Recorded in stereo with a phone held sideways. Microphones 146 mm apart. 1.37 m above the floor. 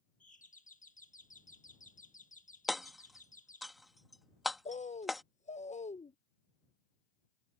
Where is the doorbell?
60° left (ahead or behind).